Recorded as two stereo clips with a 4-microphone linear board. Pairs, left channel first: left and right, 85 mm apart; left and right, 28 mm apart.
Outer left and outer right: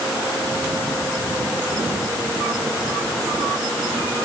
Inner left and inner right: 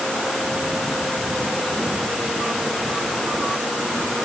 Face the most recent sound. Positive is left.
No sound to turn to.